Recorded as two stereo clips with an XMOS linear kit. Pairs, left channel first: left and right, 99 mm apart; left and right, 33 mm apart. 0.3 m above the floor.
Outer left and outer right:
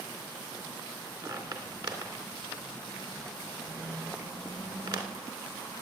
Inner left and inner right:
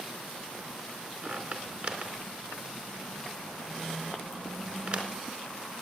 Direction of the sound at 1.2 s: 45° right (ahead or behind).